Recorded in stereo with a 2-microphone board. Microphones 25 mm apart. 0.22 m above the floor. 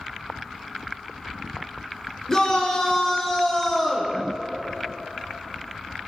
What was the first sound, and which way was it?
A shout, 25° left (ahead or behind).